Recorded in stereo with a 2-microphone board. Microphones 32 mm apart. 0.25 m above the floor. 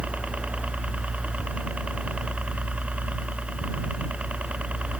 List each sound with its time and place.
0.0 s a helicopter: 45° right (ahead or behind)